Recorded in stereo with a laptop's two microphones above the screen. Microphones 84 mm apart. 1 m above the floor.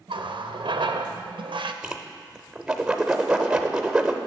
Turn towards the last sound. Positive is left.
turn(degrees=-10)  # may be behind; listen again after turning